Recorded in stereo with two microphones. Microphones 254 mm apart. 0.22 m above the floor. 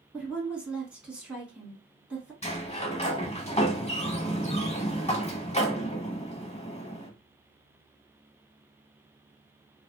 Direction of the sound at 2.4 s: 25° left (ahead or behind).